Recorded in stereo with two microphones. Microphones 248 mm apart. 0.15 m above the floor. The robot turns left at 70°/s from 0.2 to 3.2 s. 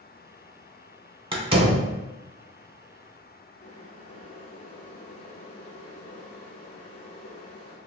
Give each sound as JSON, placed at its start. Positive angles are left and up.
{"t": 1.3, "sound": "a door slam", "side_deg": -20, "distance_m": 0.8}
{"t": 3.6, "sound": "boiling", "side_deg": 70, "distance_m": 1.0}